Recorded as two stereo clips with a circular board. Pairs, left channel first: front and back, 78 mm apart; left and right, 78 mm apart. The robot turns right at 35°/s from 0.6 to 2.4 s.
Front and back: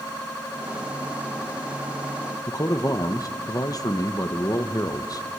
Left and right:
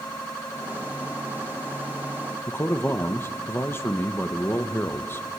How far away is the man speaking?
About 1.1 m.